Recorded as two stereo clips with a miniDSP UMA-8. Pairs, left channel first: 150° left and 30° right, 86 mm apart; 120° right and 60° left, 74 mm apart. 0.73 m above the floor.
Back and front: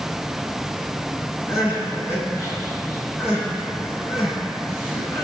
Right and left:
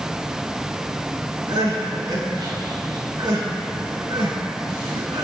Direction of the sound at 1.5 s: 90° left.